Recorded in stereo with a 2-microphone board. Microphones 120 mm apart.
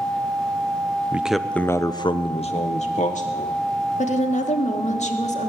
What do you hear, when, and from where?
1.1 s a man speaking: 15° right (ahead or behind), 0.8 m; by 3.6 s 75° left (ahead or behind), 1.5 m
4.0 s a woman speaking: 70° left (ahead or behind), 1.4 m